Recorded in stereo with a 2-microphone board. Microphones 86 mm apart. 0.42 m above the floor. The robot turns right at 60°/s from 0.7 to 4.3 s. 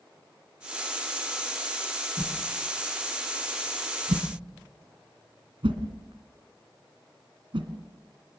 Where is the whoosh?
40° left (ahead or behind), 2.5 m; by 7.7 s 80° right, 2.5 m.